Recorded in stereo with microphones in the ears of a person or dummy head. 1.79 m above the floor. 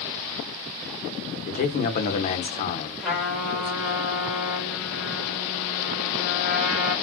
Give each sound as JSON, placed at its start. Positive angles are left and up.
{"t": 1.5, "sound": "a man speaking", "side_deg": 40, "distance_m": 0.6}
{"t": 3.0, "sound": "a trumpet", "side_deg": -5, "distance_m": 1.7}